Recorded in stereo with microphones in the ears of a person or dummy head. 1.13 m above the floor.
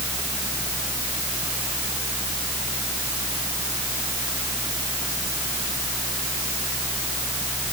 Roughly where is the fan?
Centre.